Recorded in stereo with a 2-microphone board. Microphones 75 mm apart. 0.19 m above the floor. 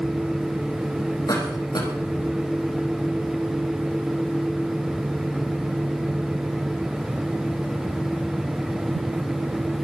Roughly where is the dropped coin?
No dropped coin in this recording.